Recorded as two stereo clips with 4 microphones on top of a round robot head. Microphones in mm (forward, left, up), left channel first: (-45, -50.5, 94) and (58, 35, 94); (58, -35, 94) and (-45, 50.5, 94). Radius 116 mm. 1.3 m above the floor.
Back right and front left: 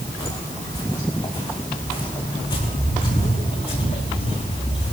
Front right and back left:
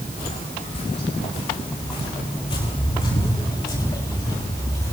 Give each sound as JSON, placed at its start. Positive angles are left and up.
{"t": 0.2, "sound": "footsteps", "azimuth_deg": -75, "distance_m": 7.0}